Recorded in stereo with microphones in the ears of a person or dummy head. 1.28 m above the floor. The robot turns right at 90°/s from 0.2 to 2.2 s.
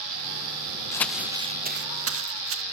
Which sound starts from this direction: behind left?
Crumpling, at 0.9 s.